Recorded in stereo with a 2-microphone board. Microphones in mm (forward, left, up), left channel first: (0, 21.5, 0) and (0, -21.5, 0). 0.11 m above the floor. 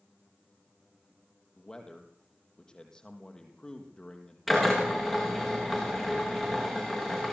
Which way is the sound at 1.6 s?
15° left (ahead or behind).